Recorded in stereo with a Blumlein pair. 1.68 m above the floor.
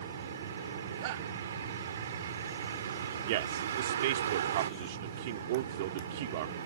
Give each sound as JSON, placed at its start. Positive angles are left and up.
{"t": 0.0, "sound": "a vehicle", "azimuth_deg": -65}
{"t": 1.0, "sound": "a shout", "azimuth_deg": -50}
{"t": 3.3, "sound": "a man speaking", "azimuth_deg": -50}